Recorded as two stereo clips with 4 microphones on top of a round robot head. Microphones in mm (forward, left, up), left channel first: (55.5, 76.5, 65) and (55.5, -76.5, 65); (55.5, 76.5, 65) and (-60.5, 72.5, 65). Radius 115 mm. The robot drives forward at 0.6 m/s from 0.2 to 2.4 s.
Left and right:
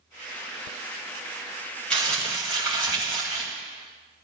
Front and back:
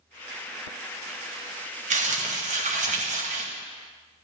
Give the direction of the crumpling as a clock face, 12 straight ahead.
6 o'clock.